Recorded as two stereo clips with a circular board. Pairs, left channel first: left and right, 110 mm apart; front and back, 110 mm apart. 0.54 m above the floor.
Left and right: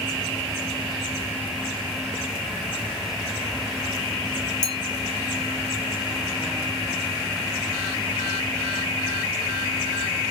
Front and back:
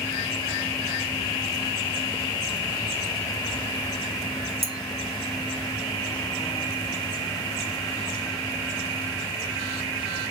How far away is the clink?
About 0.8 m.